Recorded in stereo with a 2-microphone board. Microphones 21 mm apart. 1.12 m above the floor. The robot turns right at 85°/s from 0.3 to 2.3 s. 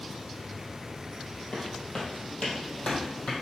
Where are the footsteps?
45° left (ahead or behind), 1.7 m; by 3.3 s 65° left (ahead or behind), 2.5 m.